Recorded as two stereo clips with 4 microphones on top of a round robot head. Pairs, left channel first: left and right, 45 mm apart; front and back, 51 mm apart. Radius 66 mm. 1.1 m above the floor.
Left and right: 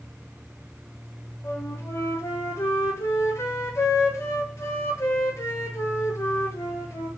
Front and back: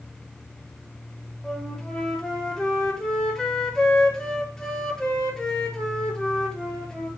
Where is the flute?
75° left, 3 m.